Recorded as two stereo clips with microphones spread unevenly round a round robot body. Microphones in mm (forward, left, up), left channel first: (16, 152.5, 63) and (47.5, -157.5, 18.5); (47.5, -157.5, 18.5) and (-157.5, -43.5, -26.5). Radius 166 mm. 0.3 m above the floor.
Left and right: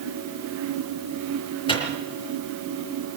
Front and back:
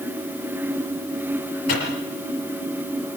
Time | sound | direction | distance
1.7 | a microwave | 20° left | 5 m